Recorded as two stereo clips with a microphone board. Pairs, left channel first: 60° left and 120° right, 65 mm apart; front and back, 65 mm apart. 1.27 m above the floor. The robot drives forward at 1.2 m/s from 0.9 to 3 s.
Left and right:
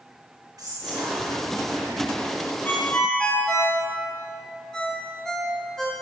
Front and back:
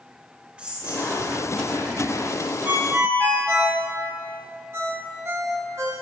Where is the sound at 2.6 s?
120° left, 1.2 m; by 3.8 s 135° left, 1.4 m.